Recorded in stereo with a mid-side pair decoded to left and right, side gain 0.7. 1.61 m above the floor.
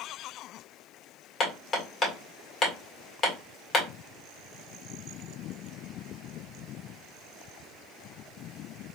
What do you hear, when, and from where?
1.4 s hammering: 30° left, 1.7 m